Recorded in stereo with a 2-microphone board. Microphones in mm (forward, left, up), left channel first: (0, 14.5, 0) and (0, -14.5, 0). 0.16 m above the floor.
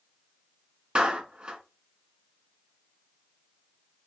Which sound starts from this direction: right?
A clap, at 0.9 s.